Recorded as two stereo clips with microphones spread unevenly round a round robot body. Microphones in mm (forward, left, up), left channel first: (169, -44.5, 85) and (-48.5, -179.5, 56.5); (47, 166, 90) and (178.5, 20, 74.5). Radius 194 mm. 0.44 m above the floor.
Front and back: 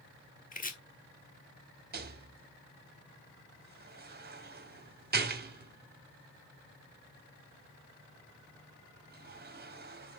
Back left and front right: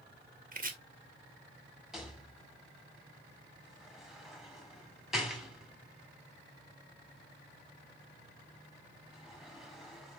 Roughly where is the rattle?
Behind right.